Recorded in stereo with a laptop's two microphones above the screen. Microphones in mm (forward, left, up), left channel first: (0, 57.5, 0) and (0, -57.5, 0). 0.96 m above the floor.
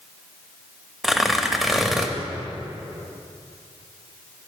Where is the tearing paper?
5° right (ahead or behind), 0.7 m.